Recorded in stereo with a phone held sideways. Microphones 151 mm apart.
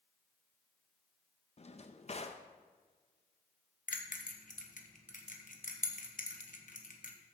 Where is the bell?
60° left (ahead or behind), 1.1 m.